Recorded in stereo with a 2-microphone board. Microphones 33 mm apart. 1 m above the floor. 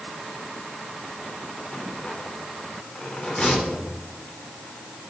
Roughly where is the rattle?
Left.